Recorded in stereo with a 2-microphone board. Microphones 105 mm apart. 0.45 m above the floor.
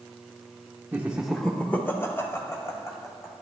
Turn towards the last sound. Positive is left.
turn(degrees=30)  # may be behind; listen again after turning